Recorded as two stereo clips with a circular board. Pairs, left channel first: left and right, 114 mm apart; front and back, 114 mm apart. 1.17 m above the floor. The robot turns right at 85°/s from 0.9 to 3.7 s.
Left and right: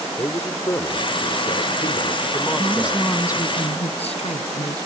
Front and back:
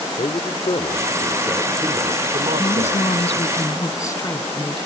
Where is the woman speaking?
30° right; by 4.8 s 65° left.